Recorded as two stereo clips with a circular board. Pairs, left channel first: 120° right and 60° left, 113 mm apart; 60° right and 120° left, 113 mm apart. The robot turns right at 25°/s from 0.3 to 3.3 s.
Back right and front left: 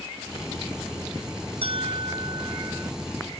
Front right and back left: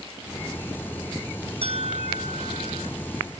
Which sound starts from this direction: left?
A bell, at 1.6 s.